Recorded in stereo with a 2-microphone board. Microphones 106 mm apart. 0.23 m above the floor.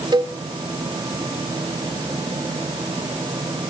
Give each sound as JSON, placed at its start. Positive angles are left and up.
{"t": 0.1, "sound": "a cowbell", "side_deg": -40, "distance_m": 1.2}